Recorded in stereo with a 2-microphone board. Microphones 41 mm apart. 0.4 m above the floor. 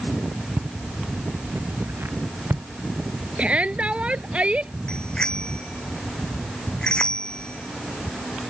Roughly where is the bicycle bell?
Left.